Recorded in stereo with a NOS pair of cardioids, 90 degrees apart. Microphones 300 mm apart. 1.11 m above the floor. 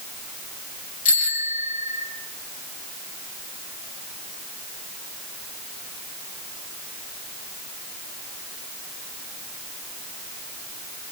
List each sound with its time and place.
1.1 s a bicycle bell: 25° left, 6.5 m